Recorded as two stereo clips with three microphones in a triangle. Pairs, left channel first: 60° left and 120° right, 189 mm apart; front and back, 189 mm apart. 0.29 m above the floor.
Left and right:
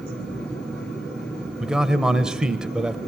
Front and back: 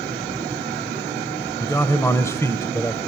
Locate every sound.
1.6 s a man speaking: 40° right, 1.0 m